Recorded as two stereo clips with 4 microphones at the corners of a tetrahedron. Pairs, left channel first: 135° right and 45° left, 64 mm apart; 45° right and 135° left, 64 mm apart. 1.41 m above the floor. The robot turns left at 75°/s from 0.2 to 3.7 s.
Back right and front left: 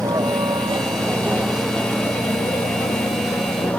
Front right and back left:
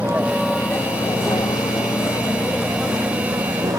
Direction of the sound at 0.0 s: 65° left.